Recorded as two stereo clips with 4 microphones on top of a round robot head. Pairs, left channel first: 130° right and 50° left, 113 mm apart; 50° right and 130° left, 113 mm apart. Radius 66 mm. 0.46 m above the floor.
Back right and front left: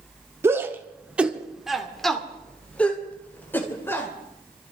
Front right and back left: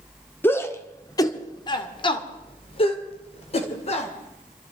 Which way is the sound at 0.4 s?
5° left.